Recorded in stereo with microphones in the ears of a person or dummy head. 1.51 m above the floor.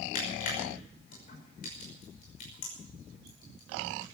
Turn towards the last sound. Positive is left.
turn(degrees=50)  # may be behind; listen again after turning